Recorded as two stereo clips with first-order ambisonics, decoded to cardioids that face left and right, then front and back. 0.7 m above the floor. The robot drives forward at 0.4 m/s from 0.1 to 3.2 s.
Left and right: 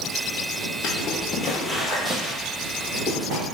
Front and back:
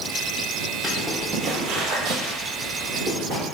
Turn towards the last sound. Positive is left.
turn(degrees=-145)